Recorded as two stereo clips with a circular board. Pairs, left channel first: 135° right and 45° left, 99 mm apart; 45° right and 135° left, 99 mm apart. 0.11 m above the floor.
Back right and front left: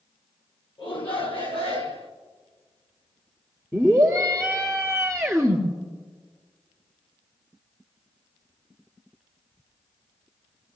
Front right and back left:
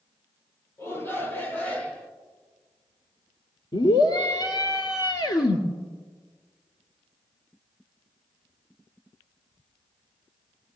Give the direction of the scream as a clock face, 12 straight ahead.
2 o'clock.